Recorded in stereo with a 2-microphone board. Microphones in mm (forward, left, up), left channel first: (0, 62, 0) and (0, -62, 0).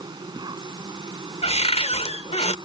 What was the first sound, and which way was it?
An insect, 35° right (ahead or behind).